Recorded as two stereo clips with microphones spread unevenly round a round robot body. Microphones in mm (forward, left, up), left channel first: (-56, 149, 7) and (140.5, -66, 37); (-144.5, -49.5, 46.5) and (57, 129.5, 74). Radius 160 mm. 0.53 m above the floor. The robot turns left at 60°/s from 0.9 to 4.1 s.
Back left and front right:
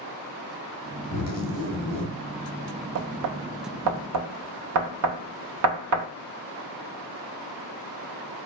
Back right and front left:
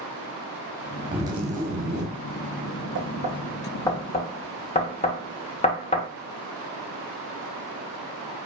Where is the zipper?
130° left, 1.3 m; by 2.1 s 65° left, 1.3 m.